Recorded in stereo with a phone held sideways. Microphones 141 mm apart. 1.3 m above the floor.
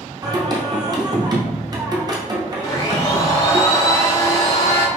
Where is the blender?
25° left (ahead or behind), 1.4 m.